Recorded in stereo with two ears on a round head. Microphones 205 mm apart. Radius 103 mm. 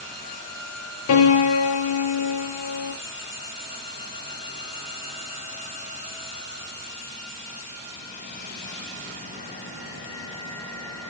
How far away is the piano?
About 0.7 m.